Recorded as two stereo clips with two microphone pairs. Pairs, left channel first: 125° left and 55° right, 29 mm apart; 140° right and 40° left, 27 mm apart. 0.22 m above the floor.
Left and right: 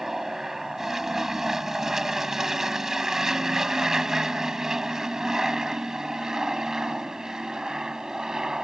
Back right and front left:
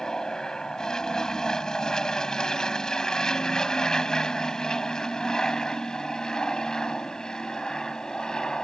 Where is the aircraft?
120° right; by 8.6 s 105° right.